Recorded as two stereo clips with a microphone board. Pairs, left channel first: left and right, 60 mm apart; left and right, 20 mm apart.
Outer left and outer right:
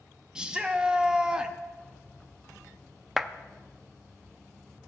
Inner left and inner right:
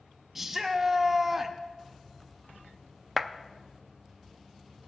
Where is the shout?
15° right (ahead or behind), 0.7 m.